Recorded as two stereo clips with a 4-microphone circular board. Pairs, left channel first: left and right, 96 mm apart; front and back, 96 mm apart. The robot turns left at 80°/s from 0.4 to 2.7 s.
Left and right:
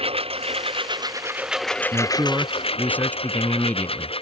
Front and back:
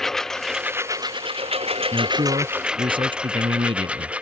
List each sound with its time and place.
0.0 s a lawn mower: 85° right; by 4.2 s 105° left
1.9 s a man speaking: 135° right; by 4.1 s 160° left